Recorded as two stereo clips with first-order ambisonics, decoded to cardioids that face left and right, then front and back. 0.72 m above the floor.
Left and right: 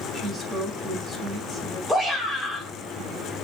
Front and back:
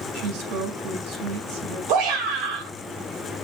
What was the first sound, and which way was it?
A woman speaking, 165° left.